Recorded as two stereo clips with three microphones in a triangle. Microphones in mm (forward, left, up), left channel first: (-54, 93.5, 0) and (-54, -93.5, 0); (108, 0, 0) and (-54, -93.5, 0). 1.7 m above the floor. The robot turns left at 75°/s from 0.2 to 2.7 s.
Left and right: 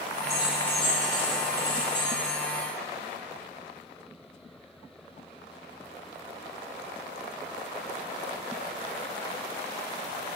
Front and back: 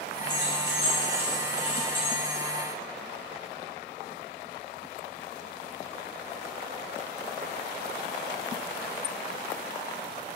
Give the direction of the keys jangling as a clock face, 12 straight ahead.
5 o'clock.